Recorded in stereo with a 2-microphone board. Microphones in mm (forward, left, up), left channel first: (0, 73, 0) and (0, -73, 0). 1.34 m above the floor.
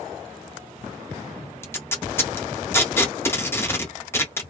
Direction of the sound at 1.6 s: 15° left (ahead or behind).